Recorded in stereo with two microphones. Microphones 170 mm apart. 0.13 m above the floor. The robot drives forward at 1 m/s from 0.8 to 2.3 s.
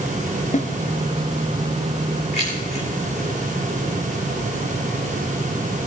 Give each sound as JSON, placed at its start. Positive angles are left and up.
{"t": 0.5, "sound": "a snare drum", "side_deg": 50, "distance_m": 1.3}
{"t": 2.3, "sound": "keys jangling", "side_deg": 40, "distance_m": 7.5}